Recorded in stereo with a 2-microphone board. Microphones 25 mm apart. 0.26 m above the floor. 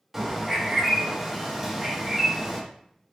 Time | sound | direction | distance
0.1 | a bird | 15° right (ahead or behind) | 1.0 m